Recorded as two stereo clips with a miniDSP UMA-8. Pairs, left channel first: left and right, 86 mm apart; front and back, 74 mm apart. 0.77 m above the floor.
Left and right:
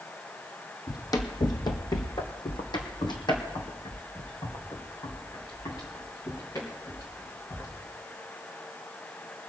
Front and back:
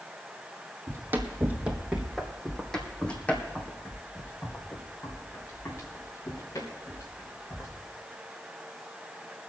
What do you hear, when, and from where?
0.9 s running footsteps: 130° left, 1.4 m; by 7.7 s 40° left, 4 m